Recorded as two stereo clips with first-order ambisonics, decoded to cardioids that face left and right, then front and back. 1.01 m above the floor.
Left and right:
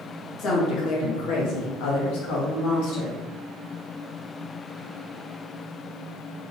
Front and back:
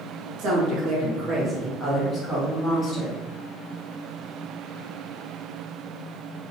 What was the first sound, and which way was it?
A woman speaking, 145° left.